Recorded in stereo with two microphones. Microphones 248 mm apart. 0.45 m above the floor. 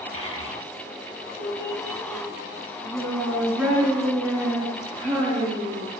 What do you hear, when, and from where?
0.1 s a child speaking: 55° right (ahead or behind), 1.1 m; by 5.9 s 75° right (ahead or behind), 5 m